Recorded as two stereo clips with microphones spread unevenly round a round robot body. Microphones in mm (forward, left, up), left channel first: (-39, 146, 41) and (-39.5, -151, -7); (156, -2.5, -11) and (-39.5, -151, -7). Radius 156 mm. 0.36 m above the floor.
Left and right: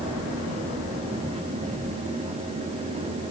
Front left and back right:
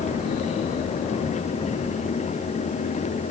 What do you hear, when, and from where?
Only background noise.